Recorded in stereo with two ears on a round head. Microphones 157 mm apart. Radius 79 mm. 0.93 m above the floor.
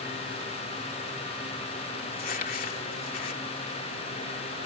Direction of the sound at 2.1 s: 55° left (ahead or behind).